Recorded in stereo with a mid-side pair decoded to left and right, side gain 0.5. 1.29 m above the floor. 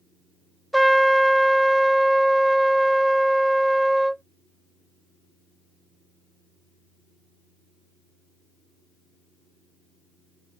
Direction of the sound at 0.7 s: 5° right.